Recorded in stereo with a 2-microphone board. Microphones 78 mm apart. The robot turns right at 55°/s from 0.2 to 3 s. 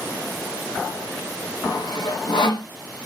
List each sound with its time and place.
1.6 s sawing: 55° left (ahead or behind), 0.9 m; by 2.7 s 65° left (ahead or behind), 0.9 m